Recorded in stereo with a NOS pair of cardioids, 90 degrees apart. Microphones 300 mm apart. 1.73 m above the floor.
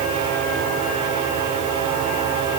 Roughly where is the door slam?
No door slam in this recording.